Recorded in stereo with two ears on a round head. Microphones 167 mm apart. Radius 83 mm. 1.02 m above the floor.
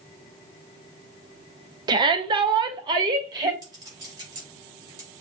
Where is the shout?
20° right (ahead or behind), 0.6 m.